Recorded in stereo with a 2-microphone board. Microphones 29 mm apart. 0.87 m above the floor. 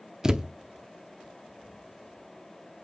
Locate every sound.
0.2 s a thud: 25° right (ahead or behind), 0.5 m